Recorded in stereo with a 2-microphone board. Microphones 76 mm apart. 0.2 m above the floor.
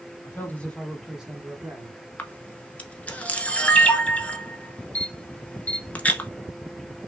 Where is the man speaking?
25° left (ahead or behind), 1.6 m; by 2.0 s 35° right (ahead or behind), 1.6 m.